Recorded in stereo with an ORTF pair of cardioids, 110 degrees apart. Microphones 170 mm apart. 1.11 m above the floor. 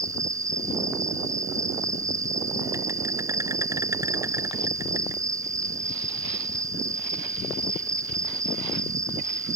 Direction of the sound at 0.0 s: 20° right.